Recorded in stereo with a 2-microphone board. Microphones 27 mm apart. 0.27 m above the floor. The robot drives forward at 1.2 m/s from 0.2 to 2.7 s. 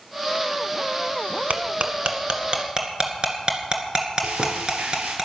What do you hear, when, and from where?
1.5 s cutlery clinking: 60° right (ahead or behind), 1.4 m; by 5.2 s 35° right (ahead or behind), 2.5 m
4.2 s frying: 80° right, 4 m